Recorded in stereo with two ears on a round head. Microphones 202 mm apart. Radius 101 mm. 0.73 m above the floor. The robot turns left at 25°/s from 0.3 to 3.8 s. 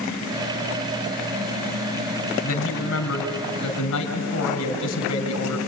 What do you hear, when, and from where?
2.4 s a man speaking: 120° left, 3.5 m; by 5.6 s 85° left, 3.5 m